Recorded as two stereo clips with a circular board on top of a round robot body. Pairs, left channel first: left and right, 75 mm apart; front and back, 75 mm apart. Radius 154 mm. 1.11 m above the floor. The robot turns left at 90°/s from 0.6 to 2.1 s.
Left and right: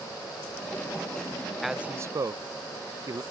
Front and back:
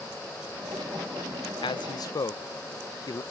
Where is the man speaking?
Straight ahead; by 3.2 s 45° right.